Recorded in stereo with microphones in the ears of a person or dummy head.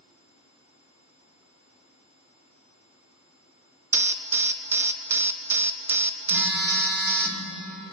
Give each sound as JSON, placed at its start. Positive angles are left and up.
{"t": 3.9, "sound": "an alarm", "side_deg": -5, "distance_m": 0.8}
{"t": 6.3, "sound": "a phone buzzing", "side_deg": -5, "distance_m": 2.5}